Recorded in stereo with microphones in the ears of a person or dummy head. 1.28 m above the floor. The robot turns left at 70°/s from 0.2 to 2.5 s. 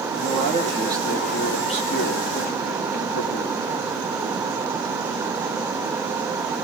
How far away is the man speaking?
About 2 m.